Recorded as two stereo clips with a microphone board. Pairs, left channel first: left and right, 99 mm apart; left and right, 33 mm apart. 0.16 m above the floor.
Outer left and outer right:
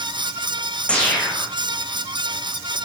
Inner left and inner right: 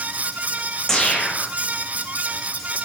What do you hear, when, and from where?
0.9 s a whoosh: 10° left (ahead or behind), 4.5 m